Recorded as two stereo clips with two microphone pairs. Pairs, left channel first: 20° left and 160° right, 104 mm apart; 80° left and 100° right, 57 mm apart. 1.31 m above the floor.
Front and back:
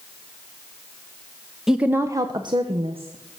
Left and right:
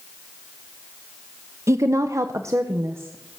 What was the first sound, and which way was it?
A woman speaking, 75° right.